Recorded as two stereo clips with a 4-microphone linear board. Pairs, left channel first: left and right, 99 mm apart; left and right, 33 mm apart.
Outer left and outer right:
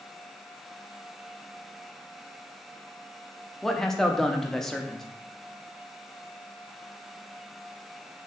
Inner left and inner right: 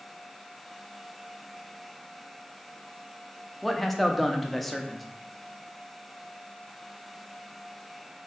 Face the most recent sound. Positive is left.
turn(degrees=5)  # may be behind; listen again after turning